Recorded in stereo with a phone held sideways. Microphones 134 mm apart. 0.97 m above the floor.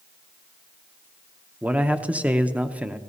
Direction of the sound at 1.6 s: 10° right (ahead or behind).